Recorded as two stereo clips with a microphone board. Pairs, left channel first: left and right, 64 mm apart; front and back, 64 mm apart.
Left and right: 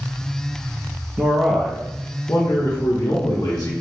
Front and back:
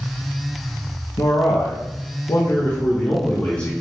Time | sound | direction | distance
1.2 | a man speaking | 20° right | 0.8 m